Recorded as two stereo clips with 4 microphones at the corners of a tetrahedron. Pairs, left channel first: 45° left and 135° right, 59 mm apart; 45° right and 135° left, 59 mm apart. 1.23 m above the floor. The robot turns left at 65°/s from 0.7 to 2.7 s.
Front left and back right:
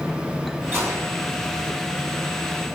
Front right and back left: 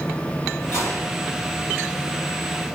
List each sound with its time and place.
0.7 s a gunshot: 80° right, 4.5 m; by 1.2 s 110° right, 4.5 m